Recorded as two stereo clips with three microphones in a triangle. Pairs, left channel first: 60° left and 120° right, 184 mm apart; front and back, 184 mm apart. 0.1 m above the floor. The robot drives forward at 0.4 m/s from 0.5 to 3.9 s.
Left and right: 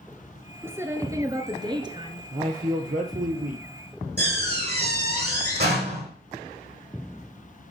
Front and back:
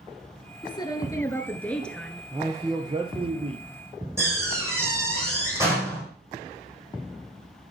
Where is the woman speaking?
50° right, 1.4 m; by 2.2 s 90° right, 1.3 m.